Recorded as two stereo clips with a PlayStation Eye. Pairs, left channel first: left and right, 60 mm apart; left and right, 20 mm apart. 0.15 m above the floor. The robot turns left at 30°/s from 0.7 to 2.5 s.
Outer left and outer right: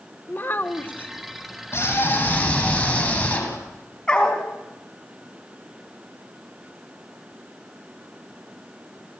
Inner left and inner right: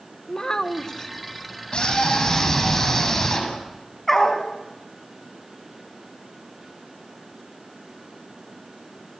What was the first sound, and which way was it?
A child speaking, 35° left (ahead or behind).